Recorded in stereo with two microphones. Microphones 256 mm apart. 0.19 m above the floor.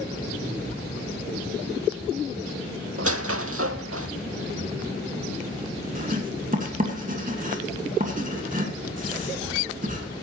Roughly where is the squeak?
Right.